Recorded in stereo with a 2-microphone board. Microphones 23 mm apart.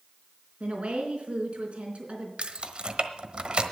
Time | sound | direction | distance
0.6 | a woman speaking | 60° right (ahead or behind) | 4 m
2.4 | keys jangling | 55° right (ahead or behind) | 1.1 m